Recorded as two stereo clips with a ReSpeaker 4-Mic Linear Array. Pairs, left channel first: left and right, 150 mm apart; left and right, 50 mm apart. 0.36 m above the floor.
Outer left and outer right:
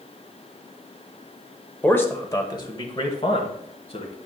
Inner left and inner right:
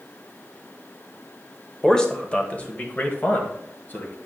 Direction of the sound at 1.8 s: 10° left (ahead or behind).